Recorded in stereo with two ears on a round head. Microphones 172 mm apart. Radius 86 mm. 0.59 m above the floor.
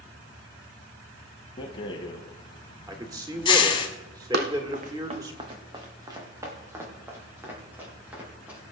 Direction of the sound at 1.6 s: 25° left (ahead or behind).